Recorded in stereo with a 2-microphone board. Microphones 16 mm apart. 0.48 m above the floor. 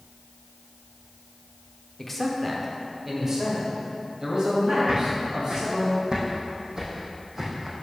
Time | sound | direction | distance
2.0 | a man speaking | 15° left (ahead or behind) | 0.9 m
4.9 | footsteps | 65° right (ahead or behind) | 2 m